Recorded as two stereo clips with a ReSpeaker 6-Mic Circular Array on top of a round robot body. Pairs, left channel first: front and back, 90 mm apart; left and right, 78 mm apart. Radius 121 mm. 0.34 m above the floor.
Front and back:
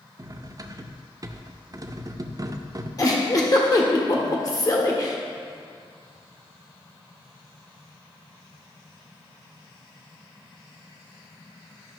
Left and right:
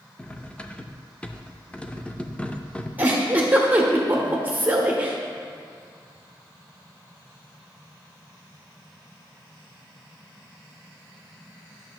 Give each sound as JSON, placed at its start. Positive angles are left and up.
{"t": 0.2, "sound": "cutlery clinking", "azimuth_deg": 160, "distance_m": 0.6}
{"t": 3.0, "sound": "a giggle", "azimuth_deg": -30, "distance_m": 1.3}